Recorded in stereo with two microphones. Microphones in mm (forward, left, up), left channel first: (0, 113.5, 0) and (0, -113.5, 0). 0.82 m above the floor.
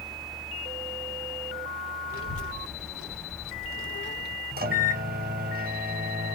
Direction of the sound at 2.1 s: 75° left (ahead or behind).